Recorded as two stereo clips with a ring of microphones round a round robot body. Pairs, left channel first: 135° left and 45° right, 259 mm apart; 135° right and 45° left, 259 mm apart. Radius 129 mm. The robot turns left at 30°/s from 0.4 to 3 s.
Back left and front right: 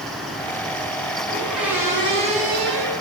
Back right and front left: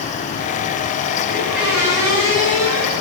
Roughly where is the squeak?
Ahead left.